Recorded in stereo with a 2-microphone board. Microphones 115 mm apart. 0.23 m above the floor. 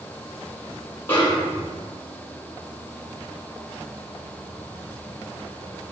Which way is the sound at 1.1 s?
20° left (ahead or behind).